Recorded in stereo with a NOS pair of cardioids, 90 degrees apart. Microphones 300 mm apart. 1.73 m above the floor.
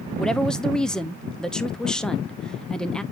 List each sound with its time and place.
0.2 s a woman speaking: 5° left, 0.8 m